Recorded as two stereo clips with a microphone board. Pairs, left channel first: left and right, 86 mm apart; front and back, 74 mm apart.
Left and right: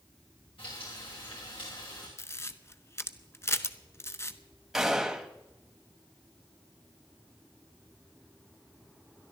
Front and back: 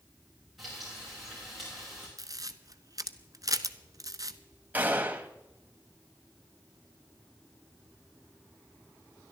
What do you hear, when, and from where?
0.6 s frying: 95° left, 7 m
2.2 s a camera shutter: 150° left, 0.7 m
4.7 s a gunshot: 170° right, 1.0 m